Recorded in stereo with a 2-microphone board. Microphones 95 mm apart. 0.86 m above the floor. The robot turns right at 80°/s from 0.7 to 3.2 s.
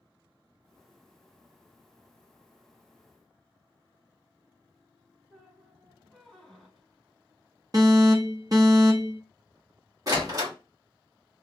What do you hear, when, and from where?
5.3 s a squeak: 5° left (ahead or behind), 1.0 m
7.7 s an alarm: 40° right (ahead or behind), 0.9 m
10.1 s a door slam: 40° right (ahead or behind), 1.1 m